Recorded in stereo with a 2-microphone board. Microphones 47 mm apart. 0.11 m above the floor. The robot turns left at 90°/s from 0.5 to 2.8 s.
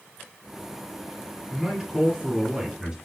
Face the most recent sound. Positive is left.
turn(degrees=-15)  # may be behind; listen again after turning